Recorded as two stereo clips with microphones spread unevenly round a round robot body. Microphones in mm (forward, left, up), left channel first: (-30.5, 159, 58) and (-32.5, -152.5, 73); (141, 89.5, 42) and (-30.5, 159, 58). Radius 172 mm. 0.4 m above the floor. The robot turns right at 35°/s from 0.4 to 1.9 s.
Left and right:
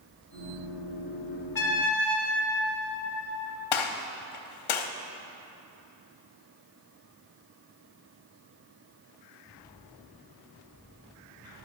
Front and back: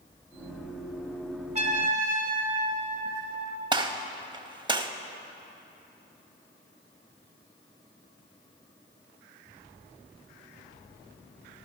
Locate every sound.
1.6 s a trumpet: 115° left, 1.9 m; by 3.6 s 125° left, 1.9 m
3.7 s a gunshot: 90° left, 0.9 m